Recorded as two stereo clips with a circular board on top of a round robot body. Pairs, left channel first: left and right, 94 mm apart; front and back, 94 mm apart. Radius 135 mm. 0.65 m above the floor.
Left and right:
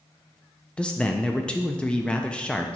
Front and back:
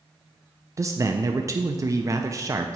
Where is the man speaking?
160° left, 0.6 m.